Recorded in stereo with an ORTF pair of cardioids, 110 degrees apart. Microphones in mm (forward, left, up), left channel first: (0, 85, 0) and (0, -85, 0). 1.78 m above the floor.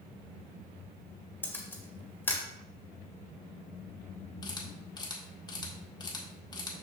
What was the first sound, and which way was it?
A camera shutter, 10° left.